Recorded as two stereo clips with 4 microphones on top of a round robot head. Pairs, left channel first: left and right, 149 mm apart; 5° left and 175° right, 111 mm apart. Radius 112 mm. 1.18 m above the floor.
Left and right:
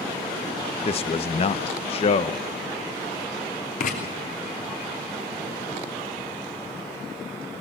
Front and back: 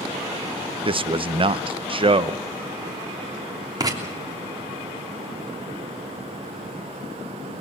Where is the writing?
135° left, 3 m.